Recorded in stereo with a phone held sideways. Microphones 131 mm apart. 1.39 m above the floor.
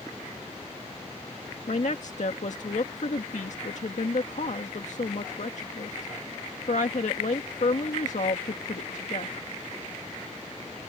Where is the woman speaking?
65° left (ahead or behind).